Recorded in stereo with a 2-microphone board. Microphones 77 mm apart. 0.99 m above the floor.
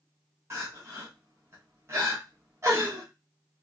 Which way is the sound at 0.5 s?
35° right (ahead or behind).